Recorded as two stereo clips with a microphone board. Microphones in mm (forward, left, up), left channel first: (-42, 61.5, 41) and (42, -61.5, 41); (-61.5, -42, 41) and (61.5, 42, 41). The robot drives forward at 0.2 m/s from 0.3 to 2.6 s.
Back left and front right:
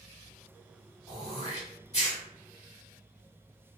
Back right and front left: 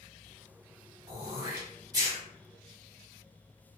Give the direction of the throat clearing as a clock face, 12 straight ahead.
9 o'clock.